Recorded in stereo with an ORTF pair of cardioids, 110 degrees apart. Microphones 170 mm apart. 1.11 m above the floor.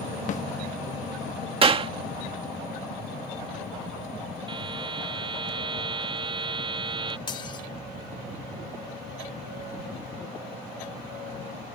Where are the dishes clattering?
30° left.